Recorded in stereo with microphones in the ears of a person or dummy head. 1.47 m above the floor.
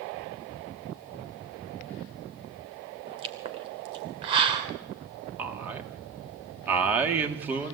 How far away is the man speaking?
About 3 m.